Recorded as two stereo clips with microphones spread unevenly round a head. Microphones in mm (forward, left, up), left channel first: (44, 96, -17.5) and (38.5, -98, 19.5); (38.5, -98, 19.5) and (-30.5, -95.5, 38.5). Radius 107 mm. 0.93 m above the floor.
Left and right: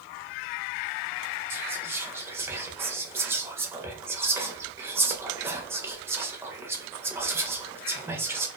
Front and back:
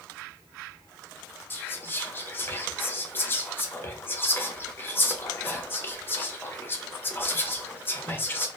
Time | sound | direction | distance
1.5 | whispering | 5° right | 0.6 m